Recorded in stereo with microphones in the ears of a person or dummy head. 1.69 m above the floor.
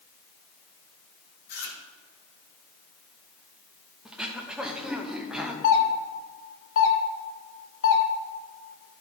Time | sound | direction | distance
1.5 | chewing | 50° left (ahead or behind) | 1.9 m
4.0 | throat clearing | 10° right (ahead or behind) | 0.6 m
5.6 | a doorbell | 85° left | 1.5 m